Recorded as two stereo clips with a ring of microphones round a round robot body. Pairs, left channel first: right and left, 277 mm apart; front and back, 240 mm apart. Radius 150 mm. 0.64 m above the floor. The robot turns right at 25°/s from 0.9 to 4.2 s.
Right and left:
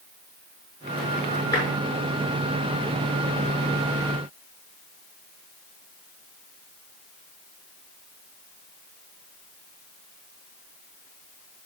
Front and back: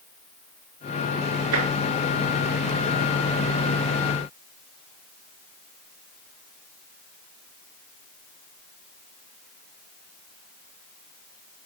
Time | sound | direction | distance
1.5 | tapping | 170° right | 6.5 m